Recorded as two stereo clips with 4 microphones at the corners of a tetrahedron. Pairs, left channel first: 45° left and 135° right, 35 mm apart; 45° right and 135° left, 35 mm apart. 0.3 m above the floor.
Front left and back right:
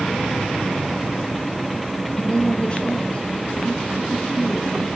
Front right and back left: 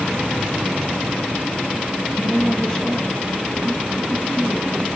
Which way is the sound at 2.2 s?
15° left.